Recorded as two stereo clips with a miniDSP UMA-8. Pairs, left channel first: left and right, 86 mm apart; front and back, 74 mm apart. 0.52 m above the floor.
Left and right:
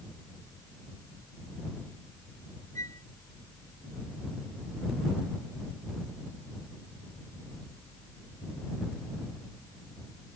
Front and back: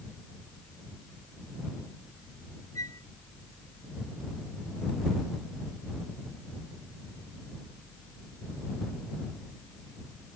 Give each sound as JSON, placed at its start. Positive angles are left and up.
{"t": 2.8, "sound": "a flute", "azimuth_deg": 40}